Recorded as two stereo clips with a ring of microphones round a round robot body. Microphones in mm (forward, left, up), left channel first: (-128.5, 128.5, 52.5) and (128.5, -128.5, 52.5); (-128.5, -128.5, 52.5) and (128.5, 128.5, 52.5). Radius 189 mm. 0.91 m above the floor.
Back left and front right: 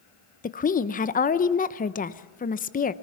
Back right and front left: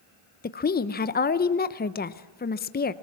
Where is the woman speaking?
175° right, 0.8 m.